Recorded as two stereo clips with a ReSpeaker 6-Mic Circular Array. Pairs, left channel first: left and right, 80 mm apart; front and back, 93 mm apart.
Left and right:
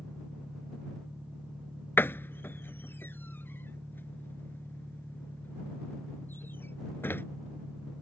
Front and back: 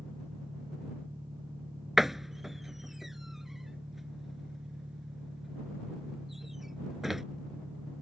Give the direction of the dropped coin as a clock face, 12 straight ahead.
No dropped coin in this recording.